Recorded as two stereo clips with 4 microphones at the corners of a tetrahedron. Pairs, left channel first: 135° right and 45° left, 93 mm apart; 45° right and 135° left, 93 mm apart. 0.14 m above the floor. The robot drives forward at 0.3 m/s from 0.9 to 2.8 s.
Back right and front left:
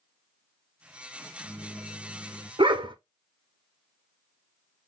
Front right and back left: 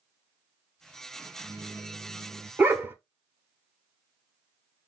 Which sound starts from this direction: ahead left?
A dog barking, at 2.6 s.